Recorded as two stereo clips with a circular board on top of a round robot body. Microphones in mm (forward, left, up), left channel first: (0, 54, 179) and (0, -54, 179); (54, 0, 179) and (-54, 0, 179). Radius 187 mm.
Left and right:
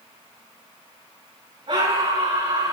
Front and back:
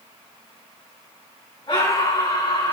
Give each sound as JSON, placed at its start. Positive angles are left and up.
{"t": 1.7, "sound": "a scream", "azimuth_deg": -50, "distance_m": 8.0}